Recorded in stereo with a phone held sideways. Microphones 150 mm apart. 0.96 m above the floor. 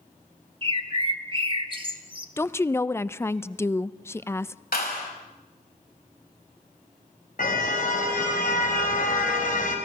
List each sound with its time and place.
0.6 s a bird: 35° right (ahead or behind), 1.5 m
2.4 s a woman speaking: 15° left (ahead or behind), 0.5 m
4.7 s a clap: 75° left (ahead or behind), 5 m
7.4 s a car horn: 65° left (ahead or behind), 3.5 m